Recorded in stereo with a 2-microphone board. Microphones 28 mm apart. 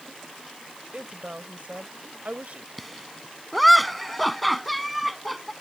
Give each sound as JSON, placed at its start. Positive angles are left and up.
{"t": 0.9, "sound": "a woman speaking", "side_deg": -60}
{"t": 2.8, "sound": "laughter", "side_deg": 0}